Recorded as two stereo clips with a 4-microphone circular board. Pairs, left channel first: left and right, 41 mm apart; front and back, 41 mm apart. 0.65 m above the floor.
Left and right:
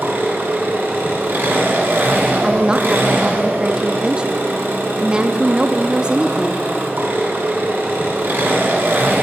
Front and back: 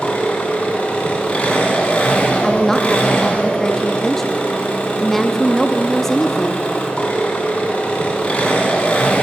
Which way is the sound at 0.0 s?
60° right.